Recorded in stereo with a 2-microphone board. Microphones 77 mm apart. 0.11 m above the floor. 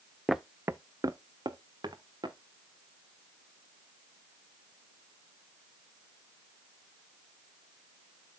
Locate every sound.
0.3 s footsteps: centre (ahead or behind), 0.5 m; by 2.4 s 75° right (ahead or behind), 1.8 m